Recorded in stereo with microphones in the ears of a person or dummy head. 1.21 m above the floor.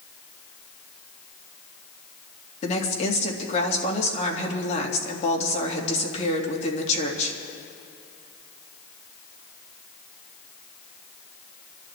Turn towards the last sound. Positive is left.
turn(degrees=40)  # may be behind; listen again after turning